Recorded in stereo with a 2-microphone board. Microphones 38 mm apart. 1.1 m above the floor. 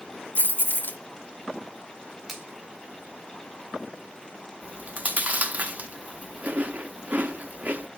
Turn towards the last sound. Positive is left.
turn(degrees=-45)  # may be behind; listen again after turning